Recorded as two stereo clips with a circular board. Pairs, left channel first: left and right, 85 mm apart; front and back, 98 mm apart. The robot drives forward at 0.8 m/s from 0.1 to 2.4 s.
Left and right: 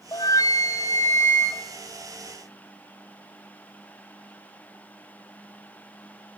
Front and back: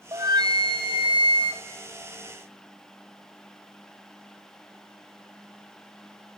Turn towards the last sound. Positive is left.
turn(degrees=160)